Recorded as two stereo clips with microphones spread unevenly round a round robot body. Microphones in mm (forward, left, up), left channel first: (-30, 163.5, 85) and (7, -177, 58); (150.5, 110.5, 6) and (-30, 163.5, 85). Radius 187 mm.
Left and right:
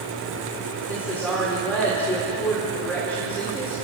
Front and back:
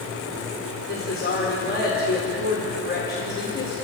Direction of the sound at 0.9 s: 10° left.